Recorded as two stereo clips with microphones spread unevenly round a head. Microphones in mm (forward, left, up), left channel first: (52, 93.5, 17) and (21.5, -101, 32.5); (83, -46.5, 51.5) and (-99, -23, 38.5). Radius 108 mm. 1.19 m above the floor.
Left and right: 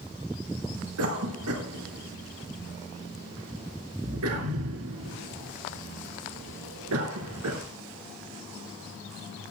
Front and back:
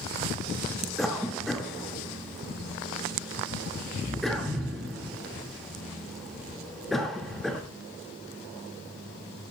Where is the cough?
95° right, 1.9 m.